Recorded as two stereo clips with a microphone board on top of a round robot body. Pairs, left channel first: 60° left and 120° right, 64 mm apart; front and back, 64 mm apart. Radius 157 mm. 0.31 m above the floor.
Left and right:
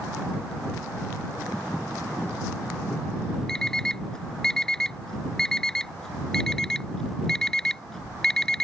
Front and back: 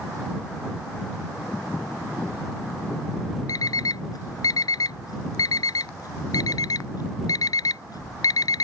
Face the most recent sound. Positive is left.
turn(degrees=-20)